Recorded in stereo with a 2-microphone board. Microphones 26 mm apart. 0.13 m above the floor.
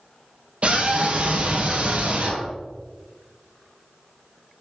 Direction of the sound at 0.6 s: 50° right (ahead or behind).